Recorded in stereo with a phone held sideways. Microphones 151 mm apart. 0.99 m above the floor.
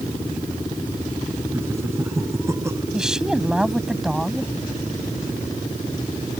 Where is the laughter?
15° right (ahead or behind); by 2.8 s 20° right (ahead or behind).